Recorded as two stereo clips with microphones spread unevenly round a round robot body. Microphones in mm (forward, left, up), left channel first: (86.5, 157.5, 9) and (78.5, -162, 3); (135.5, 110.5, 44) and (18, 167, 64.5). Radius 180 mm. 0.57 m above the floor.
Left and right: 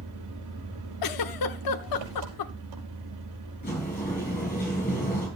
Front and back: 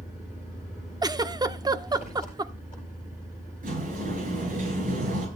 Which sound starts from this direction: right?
An engine running, at 0.0 s.